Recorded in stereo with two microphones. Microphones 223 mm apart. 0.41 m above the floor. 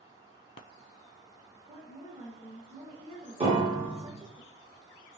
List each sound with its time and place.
1.7 s a woman speaking: 25° right (ahead or behind), 0.8 m
3.4 s a piano: 25° right (ahead or behind), 1.0 m